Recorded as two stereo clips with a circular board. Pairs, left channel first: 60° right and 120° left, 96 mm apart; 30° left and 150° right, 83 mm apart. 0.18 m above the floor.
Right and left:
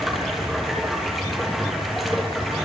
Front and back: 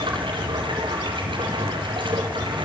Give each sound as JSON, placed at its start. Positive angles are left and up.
{"t": 0.0, "sound": "running water", "azimuth_deg": -150, "distance_m": 4.5}